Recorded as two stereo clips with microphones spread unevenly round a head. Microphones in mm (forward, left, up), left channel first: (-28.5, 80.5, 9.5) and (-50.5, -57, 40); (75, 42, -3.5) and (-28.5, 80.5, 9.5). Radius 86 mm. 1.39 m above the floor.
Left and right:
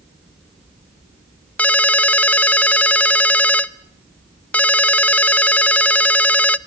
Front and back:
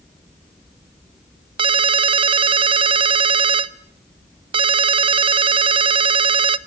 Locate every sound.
1.6 s a ringtone: 170° left, 0.7 m